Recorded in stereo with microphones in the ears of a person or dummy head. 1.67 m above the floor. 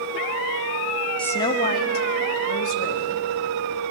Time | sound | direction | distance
1.2 | a woman speaking | 10° left (ahead or behind) | 0.8 m